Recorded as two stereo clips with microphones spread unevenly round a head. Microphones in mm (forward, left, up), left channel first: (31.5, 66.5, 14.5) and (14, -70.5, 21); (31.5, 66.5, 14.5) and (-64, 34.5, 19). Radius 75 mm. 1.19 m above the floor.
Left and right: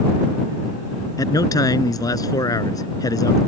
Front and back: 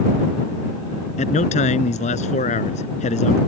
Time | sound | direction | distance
1.2 | a man speaking | 15° left | ?